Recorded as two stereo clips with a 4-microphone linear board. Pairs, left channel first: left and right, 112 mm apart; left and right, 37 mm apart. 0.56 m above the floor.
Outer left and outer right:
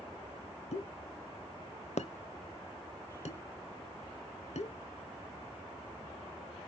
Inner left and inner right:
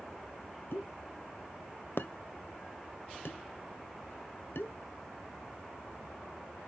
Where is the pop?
80° left, 0.7 m.